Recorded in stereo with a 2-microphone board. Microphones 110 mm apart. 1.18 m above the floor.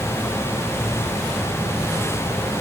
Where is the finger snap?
I don't hear a finger snap.